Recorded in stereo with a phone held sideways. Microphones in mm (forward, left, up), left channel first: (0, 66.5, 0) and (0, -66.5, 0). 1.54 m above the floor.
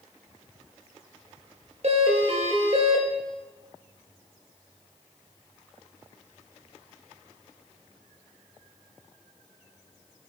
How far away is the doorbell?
About 1.2 m.